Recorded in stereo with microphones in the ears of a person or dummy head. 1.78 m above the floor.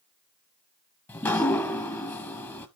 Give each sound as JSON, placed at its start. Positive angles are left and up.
{"t": 1.1, "sound": "dripping", "side_deg": 10, "distance_m": 0.8}